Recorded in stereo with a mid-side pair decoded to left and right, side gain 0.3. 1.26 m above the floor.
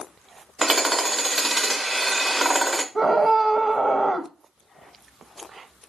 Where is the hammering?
30° right, 0.9 m.